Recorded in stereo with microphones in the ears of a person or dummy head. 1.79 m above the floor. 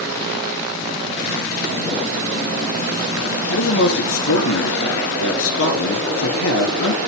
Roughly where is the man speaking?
Left.